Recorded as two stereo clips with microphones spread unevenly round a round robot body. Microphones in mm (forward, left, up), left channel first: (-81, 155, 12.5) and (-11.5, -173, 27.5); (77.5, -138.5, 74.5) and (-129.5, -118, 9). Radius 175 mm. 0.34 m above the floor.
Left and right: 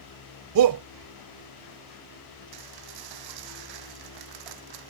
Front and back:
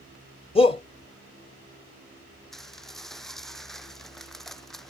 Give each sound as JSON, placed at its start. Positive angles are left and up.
{"t": 0.6, "sound": "a shout", "azimuth_deg": -80}
{"t": 2.5, "sound": "dishes clattering", "azimuth_deg": -95}